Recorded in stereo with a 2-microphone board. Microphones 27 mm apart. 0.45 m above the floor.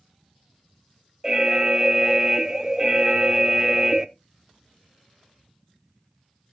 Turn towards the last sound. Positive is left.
turn(degrees=-25)  # may be behind; listen again after turning